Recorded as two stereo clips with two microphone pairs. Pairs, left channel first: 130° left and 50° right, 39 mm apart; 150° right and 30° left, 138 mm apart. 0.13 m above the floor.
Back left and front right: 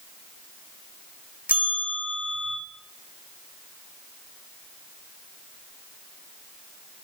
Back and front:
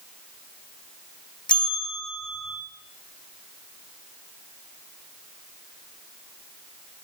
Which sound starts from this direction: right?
A bell, at 1.5 s.